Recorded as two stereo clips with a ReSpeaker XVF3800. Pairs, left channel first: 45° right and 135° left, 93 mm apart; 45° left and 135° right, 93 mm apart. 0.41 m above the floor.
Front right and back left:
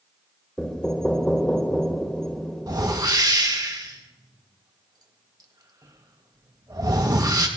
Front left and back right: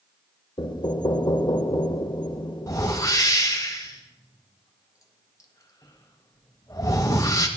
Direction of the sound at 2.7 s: 95° left.